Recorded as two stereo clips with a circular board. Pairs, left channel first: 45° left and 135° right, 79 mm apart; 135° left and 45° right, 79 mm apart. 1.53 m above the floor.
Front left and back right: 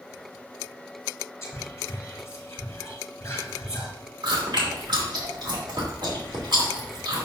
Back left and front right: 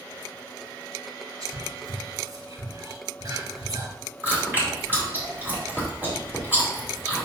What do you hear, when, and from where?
1.4 s whispering: 10° right, 4 m
4.2 s chewing: 110° right, 2.5 m